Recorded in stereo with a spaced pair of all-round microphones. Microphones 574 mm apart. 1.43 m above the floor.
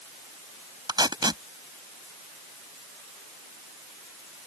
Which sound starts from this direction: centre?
Tape being pulled, at 0.9 s.